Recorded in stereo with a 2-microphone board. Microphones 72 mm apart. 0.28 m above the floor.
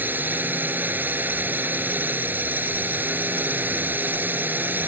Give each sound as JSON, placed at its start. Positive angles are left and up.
{"t": 0.0, "sound": "a drone", "side_deg": -25}